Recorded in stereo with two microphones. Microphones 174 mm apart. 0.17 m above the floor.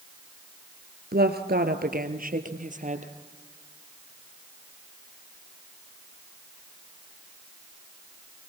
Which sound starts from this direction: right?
A woman speaking, at 1.1 s.